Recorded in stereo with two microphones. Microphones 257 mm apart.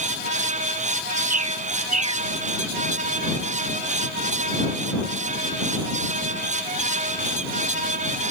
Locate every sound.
1.3 s a bird: 80° right